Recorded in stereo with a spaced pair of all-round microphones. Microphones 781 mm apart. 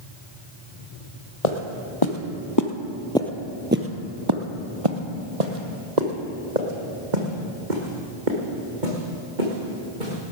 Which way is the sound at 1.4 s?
50° left (ahead or behind).